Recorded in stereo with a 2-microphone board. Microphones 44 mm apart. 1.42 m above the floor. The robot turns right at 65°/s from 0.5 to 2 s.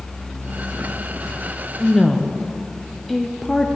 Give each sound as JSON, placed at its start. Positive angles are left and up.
{"t": 1.8, "sound": "a woman speaking", "side_deg": -5, "distance_m": 0.6}